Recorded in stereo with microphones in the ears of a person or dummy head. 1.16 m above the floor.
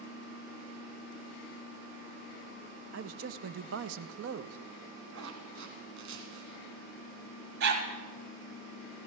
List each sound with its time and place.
2.9 s a man speaking: 70° right (ahead or behind), 0.7 m
5.1 s a zipper: 70° right (ahead or behind), 3 m
7.6 s a dog barking: 70° right (ahead or behind), 2.5 m